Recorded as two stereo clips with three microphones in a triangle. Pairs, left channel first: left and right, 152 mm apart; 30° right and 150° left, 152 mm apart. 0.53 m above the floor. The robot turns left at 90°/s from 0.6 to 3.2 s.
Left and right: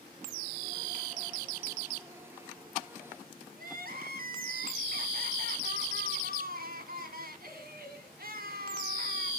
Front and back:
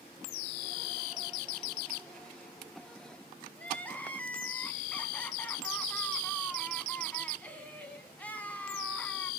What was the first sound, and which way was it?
Crying, 110° right.